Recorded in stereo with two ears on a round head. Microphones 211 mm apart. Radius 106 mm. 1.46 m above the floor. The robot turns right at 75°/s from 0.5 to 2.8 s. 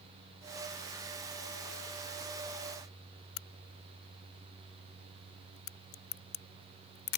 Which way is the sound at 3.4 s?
65° left (ahead or behind).